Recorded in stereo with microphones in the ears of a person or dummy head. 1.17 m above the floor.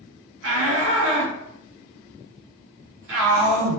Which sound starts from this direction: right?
A shout, at 0.4 s.